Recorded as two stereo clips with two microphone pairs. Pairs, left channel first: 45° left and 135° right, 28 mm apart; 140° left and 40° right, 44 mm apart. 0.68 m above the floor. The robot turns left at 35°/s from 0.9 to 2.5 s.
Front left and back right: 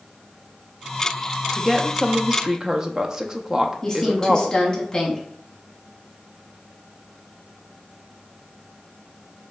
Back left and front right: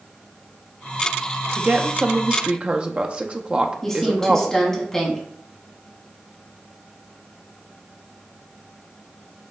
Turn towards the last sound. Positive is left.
turn(degrees=70)